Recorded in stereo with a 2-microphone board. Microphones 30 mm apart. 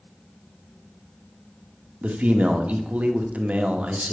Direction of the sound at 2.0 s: 55° right (ahead or behind).